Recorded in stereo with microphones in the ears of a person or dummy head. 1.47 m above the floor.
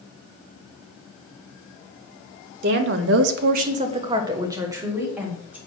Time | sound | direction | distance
2.6 | a woman speaking | 55° right (ahead or behind) | 1.3 m